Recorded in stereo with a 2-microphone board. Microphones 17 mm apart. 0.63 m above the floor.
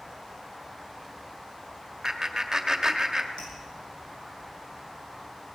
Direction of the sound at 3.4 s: 60° left (ahead or behind).